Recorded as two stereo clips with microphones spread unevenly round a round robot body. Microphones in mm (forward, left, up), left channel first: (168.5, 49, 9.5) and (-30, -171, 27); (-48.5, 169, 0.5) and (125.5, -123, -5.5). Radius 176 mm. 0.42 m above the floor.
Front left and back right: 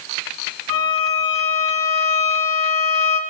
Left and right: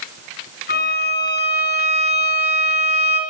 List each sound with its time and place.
0.7 s a violin: 60° left, 3.5 m